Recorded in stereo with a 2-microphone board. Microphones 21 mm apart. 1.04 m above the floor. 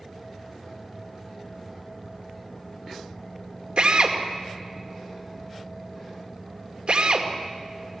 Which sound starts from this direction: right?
A drill, at 3.8 s.